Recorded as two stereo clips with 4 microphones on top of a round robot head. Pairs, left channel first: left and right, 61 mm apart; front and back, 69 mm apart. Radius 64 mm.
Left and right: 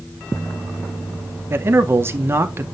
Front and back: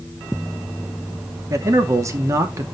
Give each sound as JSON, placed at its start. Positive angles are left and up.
{"t": 1.5, "sound": "a man speaking", "azimuth_deg": -135, "distance_m": 1.2}